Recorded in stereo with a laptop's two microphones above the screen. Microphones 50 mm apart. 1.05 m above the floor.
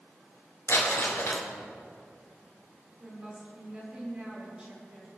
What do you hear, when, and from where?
0.7 s crumpling: 65° left (ahead or behind), 4 m
3.0 s a woman speaking: 25° right (ahead or behind), 4.5 m